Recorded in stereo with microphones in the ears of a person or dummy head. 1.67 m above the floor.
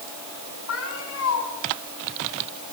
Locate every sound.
0.7 s a cat meowing: 85° left, 9 m